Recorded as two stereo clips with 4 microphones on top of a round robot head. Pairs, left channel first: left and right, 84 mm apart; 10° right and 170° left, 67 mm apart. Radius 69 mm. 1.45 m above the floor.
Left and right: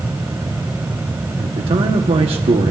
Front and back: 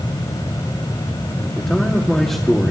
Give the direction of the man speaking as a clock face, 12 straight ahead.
3 o'clock.